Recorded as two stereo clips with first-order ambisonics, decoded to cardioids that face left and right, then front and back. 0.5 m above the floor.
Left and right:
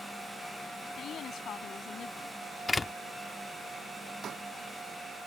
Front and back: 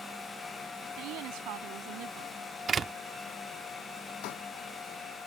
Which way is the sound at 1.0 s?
145° left.